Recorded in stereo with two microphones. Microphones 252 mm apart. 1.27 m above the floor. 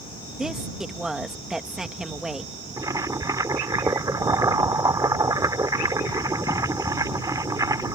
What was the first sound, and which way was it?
A woman speaking, centre (ahead or behind).